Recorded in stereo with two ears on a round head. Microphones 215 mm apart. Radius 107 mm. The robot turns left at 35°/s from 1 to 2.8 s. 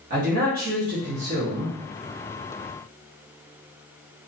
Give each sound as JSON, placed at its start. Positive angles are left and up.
{"t": 0.1, "sound": "a man speaking", "side_deg": -40, "distance_m": 1.0}